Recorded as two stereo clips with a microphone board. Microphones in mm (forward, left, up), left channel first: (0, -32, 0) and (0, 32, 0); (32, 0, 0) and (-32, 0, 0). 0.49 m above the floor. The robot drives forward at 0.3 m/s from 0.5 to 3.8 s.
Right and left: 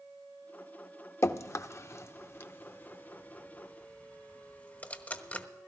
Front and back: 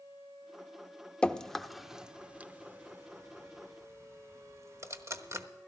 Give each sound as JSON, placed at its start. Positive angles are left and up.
{"t": 1.2, "sound": "dripping", "azimuth_deg": -70, "distance_m": 0.5}